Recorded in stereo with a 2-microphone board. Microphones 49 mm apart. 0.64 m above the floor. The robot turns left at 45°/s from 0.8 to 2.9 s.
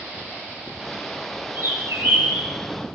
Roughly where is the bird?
Right.